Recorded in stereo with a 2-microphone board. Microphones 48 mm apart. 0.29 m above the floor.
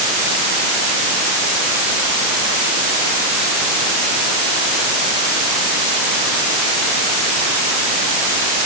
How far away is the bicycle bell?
I don't hear a bicycle bell.